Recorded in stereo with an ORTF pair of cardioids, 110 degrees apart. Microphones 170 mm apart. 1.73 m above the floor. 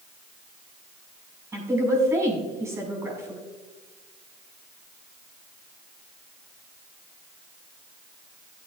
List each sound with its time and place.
1.5 s a woman speaking: 15° right, 6 m